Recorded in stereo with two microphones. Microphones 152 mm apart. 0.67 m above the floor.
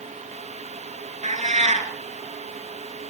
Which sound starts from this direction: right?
A cat meowing, at 1.2 s.